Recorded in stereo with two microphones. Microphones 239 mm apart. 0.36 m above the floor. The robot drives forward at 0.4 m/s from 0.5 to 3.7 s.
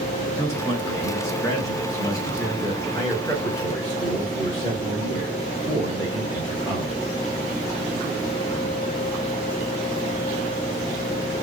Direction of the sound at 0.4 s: 10° left (ahead or behind).